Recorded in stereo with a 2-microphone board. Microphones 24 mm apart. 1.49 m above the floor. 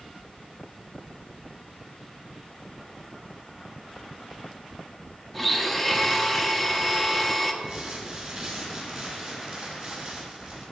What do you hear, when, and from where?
5.3 s a blender: centre (ahead or behind), 1.0 m
7.6 s crumpling: 50° right (ahead or behind), 3.5 m